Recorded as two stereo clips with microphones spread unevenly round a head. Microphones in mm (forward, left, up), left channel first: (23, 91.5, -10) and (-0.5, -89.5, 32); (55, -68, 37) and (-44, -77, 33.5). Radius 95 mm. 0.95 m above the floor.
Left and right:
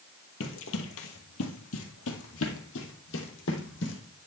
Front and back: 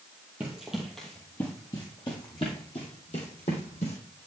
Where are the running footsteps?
105° left, 1.6 m; by 4.2 s 50° left, 3 m.